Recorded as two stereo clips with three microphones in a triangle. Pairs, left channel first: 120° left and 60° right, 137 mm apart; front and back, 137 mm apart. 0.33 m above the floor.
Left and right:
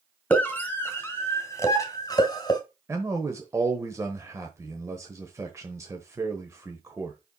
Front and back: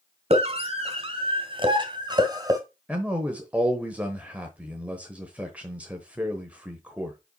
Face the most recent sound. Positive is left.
turn(degrees=-110)